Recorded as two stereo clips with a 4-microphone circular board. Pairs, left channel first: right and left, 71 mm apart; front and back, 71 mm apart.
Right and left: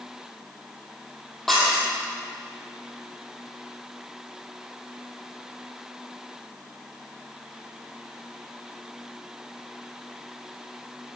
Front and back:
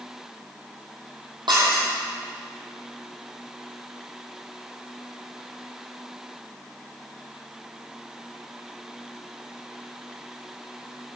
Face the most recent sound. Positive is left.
turn(degrees=180)